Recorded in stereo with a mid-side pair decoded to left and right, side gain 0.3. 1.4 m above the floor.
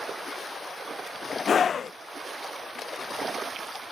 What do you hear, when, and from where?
1.5 s a scream: 65° left